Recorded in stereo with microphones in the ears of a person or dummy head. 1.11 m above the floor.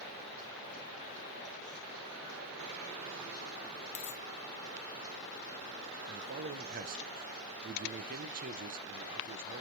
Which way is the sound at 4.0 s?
65° left (ahead or behind).